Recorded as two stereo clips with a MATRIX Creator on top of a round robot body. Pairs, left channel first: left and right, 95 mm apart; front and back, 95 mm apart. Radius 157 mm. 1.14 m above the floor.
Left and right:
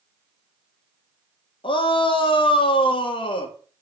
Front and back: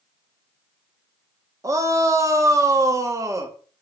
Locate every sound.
1.6 s a shout: 125° left, 1.8 m